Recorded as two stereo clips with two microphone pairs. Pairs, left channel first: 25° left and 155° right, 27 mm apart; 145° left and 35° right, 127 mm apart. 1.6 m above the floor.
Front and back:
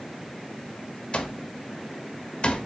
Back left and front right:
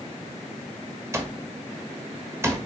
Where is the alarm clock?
30° left, 1.1 m.